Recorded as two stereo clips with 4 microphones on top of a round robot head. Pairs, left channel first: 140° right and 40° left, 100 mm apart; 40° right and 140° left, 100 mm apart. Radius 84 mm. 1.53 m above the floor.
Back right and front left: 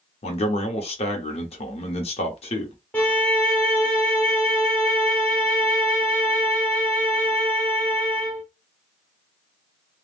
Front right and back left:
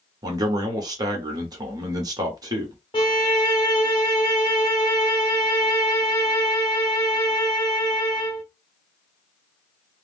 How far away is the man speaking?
About 1.0 m.